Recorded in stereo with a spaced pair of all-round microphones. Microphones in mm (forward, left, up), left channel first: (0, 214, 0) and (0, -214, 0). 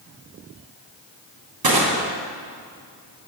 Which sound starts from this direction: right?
Crushing, at 1.6 s.